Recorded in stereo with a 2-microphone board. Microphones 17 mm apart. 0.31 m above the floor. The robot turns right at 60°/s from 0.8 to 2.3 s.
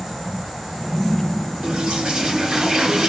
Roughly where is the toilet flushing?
Right.